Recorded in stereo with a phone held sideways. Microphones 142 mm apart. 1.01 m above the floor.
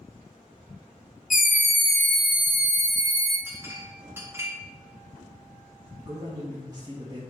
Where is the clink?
20° right (ahead or behind), 1.1 m.